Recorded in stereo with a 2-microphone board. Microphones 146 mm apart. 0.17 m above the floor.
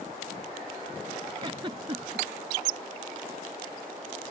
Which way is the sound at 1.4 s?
35° right (ahead or behind).